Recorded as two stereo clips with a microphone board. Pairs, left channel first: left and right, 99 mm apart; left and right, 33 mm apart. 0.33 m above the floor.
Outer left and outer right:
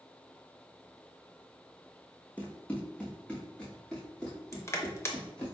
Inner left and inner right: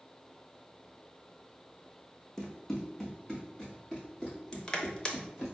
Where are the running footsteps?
15° left (ahead or behind), 0.8 m; by 5.5 s 10° left (ahead or behind), 2.5 m.